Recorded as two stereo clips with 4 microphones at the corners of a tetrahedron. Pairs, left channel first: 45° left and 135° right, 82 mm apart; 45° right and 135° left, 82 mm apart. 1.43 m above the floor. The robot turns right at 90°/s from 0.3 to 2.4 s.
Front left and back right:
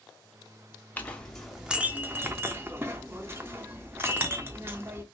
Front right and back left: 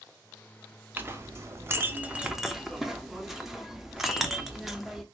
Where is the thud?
No thud in this recording.